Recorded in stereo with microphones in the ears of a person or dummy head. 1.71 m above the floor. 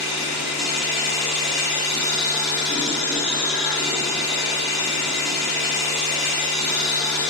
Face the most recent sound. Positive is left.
turn(degrees=45)  # may be behind; listen again after turning